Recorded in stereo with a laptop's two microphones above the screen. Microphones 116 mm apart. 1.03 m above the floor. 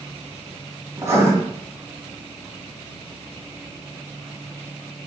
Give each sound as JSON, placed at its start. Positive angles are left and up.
{"t": 1.0, "sound": "writing", "side_deg": -25, "distance_m": 2.0}